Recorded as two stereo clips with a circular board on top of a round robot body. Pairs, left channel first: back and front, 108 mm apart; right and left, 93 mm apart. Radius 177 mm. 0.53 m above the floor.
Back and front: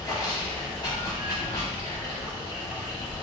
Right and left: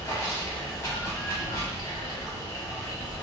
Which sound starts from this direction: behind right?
Running water, at 0.0 s.